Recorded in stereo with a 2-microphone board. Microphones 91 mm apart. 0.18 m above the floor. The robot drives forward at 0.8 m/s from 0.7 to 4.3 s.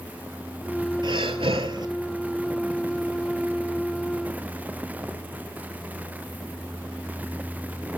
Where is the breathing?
60° right (ahead or behind), 0.6 m; by 1.9 s 50° right (ahead or behind), 0.6 m.